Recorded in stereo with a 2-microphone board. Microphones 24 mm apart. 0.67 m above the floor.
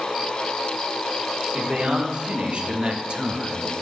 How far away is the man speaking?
About 1.5 m.